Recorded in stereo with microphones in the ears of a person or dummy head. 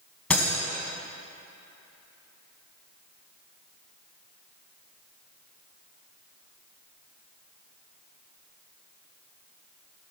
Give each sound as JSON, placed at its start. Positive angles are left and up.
{"t": 0.3, "sound": "breaking glass", "side_deg": 10, "distance_m": 2.0}